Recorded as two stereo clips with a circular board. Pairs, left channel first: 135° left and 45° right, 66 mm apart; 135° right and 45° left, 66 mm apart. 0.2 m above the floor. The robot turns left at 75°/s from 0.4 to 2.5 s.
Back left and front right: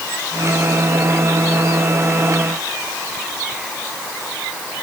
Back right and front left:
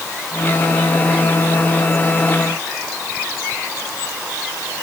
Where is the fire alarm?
No fire alarm in this recording.